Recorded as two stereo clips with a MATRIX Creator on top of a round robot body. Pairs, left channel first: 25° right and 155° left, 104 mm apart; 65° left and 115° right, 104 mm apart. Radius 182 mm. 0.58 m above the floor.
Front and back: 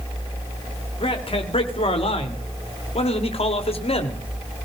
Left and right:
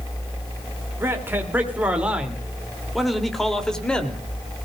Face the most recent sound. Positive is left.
turn(degrees=-10)